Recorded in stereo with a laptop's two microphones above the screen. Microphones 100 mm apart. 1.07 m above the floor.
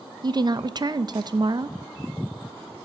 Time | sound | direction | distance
0.2 | a woman speaking | 45° right (ahead or behind) | 0.6 m